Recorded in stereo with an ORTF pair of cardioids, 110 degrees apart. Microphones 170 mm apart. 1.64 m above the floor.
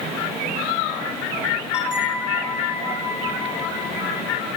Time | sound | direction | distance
1.7 | a bell | 5° right | 3.5 m